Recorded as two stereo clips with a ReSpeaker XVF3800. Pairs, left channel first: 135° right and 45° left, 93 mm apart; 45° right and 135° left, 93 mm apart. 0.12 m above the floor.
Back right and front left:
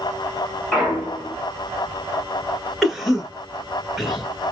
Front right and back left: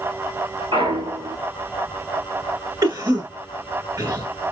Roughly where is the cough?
Behind left.